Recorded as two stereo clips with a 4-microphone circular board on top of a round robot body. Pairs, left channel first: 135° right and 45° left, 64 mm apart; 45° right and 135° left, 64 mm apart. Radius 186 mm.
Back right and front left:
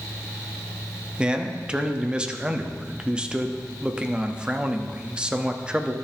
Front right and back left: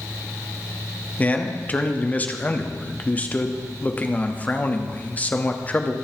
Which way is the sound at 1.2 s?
15° right.